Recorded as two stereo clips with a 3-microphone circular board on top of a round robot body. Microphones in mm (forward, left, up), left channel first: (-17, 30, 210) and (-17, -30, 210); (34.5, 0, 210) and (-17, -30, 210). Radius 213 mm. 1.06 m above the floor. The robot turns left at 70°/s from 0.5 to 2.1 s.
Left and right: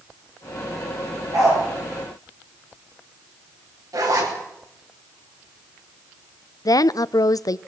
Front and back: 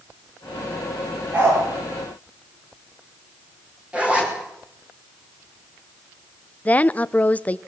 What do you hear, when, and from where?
1.3 s a dog barking: 90° right, 10 m; by 1.6 s 110° right, 10 m
3.9 s a zipper: 80° right, 4.5 m
6.7 s a woman speaking: 95° left, 0.6 m